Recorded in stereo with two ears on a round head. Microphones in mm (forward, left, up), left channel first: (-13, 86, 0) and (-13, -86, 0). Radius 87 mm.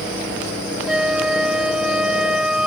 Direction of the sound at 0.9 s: 5° right (ahead or behind).